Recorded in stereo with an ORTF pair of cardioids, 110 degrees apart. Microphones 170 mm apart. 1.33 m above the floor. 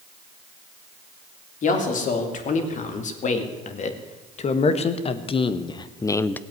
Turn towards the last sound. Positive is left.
turn(degrees=10)